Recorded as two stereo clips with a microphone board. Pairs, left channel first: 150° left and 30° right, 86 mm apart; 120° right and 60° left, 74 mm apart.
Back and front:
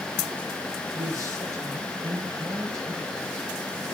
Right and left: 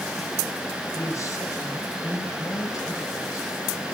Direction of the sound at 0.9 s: 80° right.